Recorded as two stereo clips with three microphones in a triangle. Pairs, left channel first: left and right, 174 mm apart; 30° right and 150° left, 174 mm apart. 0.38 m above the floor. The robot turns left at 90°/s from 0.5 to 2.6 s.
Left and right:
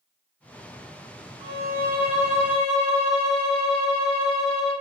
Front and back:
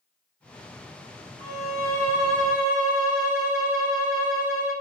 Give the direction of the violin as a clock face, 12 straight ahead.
1 o'clock.